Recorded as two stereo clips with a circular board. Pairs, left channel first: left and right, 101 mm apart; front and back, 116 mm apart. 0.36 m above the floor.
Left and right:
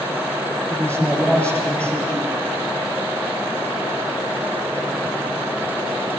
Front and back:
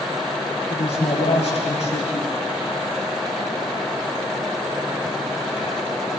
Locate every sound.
0.7 s a man speaking: 15° left, 9 m